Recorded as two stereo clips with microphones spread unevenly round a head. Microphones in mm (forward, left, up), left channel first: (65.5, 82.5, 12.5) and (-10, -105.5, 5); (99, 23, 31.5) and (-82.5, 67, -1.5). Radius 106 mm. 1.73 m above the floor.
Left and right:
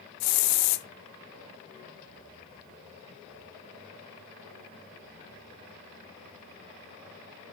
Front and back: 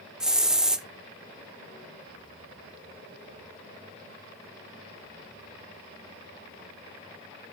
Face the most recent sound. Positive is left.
turn(degrees=80)